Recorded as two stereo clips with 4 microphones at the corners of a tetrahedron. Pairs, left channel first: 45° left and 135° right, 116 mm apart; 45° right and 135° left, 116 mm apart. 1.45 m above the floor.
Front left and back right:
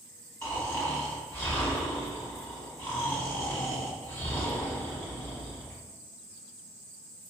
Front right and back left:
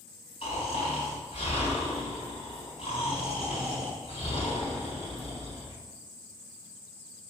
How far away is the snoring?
About 3.5 m.